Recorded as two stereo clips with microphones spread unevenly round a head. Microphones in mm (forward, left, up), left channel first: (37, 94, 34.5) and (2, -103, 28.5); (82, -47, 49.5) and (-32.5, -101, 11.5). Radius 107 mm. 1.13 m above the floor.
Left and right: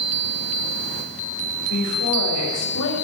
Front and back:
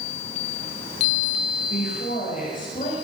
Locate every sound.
1.7 s a woman speaking: 80° left, 6 m